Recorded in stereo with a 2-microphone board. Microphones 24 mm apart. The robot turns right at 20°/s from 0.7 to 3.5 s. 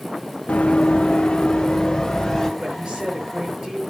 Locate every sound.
0.5 s running footsteps: 70° left (ahead or behind), 1.2 m; by 2.5 s 5° left (ahead or behind), 2.5 m
2.6 s a woman speaking: 60° right (ahead or behind), 6.5 m; by 3.8 s 45° right (ahead or behind), 6.5 m